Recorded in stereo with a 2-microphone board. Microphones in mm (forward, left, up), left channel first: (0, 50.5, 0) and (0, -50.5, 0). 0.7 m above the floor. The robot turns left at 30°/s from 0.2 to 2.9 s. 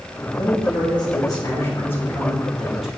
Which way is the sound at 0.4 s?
70° left.